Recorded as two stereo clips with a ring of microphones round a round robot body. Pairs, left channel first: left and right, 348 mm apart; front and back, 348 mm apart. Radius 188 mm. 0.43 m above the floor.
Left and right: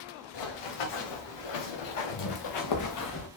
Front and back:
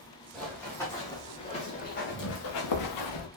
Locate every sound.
0.3 s running footsteps: 90° left, 3.5 m; by 3.3 s 30° left, 1.7 m